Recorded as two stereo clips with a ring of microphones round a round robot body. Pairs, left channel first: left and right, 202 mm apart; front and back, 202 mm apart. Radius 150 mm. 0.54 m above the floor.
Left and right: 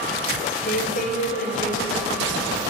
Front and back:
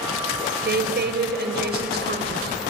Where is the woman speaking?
145° left, 3 m.